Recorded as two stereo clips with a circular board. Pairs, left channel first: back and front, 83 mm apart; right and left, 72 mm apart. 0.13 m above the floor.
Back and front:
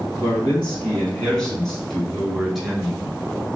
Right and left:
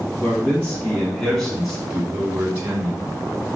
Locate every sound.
0.2 s a man speaking: 125° right, 1.4 m; by 3.2 s 75° left, 1.5 m